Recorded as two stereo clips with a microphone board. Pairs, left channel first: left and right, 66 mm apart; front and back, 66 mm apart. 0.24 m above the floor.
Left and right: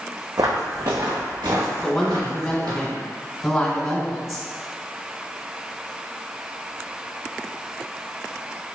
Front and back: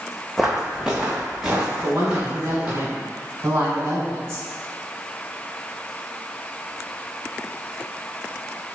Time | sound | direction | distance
0.4 | footsteps | 95° right | 0.6 m
1.8 | a woman speaking | 165° left | 1.3 m